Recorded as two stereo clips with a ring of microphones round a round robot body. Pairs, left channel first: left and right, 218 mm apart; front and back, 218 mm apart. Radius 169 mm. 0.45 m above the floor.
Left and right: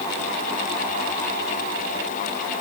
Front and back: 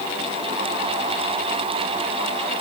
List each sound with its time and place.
Only background noise.